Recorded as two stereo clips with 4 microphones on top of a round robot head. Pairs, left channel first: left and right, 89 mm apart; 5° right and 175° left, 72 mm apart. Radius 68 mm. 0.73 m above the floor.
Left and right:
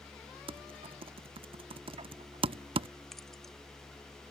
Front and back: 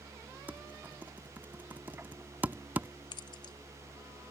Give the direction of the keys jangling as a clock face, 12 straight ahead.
12 o'clock.